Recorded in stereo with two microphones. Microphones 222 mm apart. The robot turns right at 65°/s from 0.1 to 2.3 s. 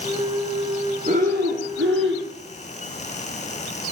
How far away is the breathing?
About 1.9 m.